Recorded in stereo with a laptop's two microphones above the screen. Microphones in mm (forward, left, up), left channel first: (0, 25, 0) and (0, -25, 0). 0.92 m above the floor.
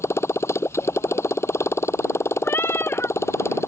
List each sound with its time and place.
0.0 s a motorcycle: 55° left (ahead or behind)
2.4 s a cat meowing: 50° left (ahead or behind)